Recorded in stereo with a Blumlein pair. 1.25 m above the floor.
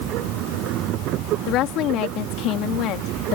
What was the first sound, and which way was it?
A machine running, 35° right.